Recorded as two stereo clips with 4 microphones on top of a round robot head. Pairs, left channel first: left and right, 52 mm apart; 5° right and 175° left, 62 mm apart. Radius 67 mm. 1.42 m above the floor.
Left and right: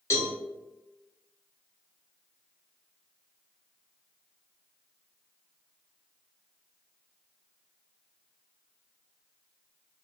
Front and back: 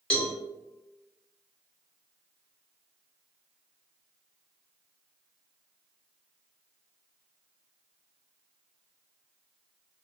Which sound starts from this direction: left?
A cowbell, at 0.1 s.